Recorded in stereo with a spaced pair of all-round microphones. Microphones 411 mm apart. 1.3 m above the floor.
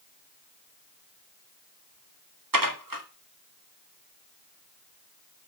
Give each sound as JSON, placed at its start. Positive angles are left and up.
{"t": 2.5, "sound": "dishes clattering", "side_deg": -50, "distance_m": 1.5}